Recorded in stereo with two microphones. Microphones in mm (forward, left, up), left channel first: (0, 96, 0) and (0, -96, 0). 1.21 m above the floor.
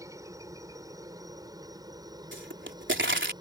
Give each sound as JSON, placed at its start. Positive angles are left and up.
{"t": 0.0, "sound": "a helicopter", "side_deg": -15}
{"t": 2.3, "sound": "a pop", "side_deg": -80}